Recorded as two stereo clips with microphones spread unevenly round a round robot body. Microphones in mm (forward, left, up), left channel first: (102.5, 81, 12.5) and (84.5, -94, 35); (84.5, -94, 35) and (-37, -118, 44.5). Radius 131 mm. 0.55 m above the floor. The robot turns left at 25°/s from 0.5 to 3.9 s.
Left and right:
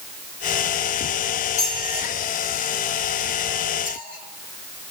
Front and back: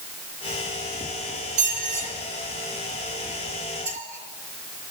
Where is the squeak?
160° right, 5 m; by 4.9 s 140° left, 5 m.